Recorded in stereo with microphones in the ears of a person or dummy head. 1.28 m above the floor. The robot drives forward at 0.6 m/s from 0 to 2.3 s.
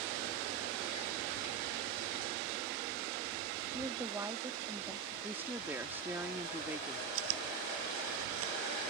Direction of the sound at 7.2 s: 90° right.